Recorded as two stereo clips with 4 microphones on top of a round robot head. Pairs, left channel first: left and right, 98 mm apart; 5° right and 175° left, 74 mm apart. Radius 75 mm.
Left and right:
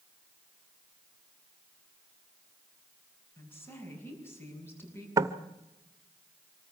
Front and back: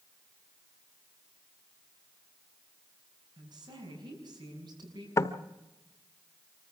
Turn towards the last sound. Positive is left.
turn(degrees=-45)